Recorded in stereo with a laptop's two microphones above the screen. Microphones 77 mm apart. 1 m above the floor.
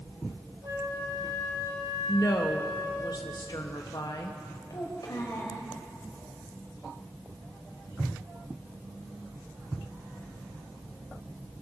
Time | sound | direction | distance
0.6 | a flute | 65° right (ahead or behind) | 4 m
2.1 | a woman speaking | 60° left (ahead or behind) | 1.0 m
4.7 | a child speaking | 55° left (ahead or behind) | 4 m